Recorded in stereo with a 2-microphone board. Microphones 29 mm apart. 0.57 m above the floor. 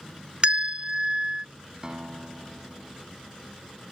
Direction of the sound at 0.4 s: 35° right (ahead or behind).